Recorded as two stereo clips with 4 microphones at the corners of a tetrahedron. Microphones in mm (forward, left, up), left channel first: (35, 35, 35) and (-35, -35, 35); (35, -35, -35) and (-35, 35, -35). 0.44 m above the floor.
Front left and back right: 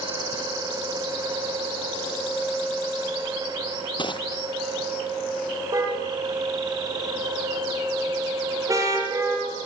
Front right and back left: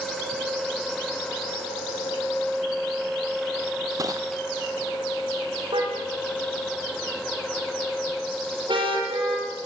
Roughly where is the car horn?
Behind.